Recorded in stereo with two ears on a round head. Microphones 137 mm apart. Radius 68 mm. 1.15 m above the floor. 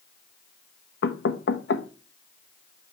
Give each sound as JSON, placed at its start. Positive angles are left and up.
{"t": 1.0, "sound": "knocking", "side_deg": 80, "distance_m": 0.8}